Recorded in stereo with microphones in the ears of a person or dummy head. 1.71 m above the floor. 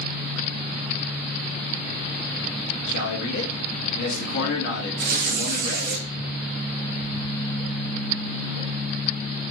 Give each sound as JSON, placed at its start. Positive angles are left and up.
{"t": 2.9, "sound": "a man speaking", "side_deg": 65, "distance_m": 1.4}
{"t": 5.0, "sound": "tearing paper", "side_deg": -55, "distance_m": 0.9}